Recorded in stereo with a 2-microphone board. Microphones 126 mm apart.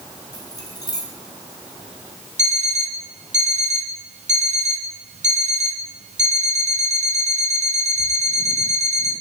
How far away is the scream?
I don't hear a scream.